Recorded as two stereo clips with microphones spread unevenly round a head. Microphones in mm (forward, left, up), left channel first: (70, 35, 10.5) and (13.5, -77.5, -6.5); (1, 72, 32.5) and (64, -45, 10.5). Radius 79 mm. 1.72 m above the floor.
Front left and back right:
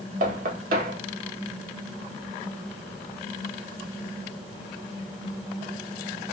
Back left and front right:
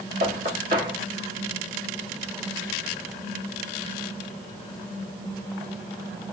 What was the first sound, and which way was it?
Knocking, 105° right.